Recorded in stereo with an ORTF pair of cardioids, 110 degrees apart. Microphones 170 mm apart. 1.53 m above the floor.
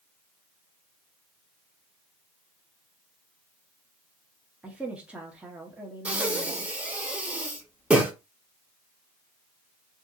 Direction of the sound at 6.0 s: 10° right.